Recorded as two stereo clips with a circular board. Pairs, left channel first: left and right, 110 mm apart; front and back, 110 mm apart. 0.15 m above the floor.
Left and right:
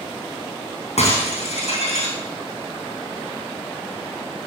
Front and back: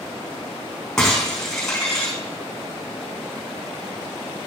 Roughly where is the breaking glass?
Left.